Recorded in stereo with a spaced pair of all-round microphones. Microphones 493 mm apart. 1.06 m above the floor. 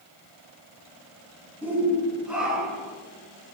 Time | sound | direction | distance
1.6 | a shout | 5° right (ahead or behind) | 9.5 m